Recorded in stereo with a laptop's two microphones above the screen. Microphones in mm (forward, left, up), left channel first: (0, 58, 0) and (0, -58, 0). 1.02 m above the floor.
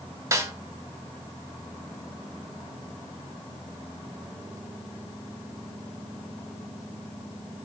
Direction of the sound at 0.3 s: 30° right (ahead or behind).